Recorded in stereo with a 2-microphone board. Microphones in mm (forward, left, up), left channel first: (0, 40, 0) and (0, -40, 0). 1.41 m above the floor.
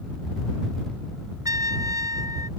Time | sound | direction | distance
1.4 | a trumpet | 45° right (ahead or behind) | ?